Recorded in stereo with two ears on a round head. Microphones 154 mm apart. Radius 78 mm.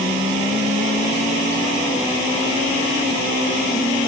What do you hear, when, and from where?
Only background noise.